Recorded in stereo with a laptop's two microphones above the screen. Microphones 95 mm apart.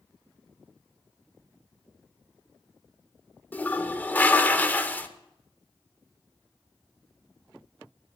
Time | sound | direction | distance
3.5 | a toilet flushing | 20° left (ahead or behind) | 0.7 m